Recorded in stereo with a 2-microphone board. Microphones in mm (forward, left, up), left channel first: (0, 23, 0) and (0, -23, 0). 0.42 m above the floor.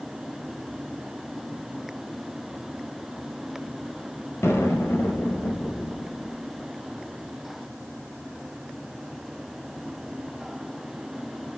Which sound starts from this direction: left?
An explosion, at 4.4 s.